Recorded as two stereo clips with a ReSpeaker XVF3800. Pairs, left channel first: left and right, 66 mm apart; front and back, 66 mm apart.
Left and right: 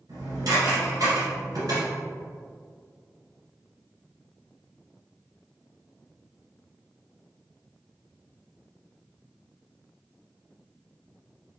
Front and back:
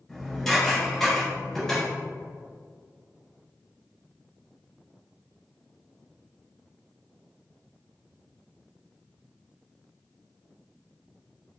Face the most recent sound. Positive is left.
turn(degrees=-85)